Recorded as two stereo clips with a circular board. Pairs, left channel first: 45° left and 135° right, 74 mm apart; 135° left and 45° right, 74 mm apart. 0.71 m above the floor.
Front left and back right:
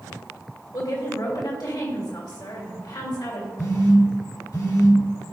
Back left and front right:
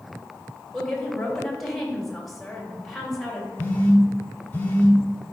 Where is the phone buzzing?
75° left, 1.2 m.